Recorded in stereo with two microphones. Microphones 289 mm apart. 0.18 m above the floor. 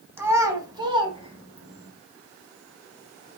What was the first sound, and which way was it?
A child speaking, 5° right (ahead or behind).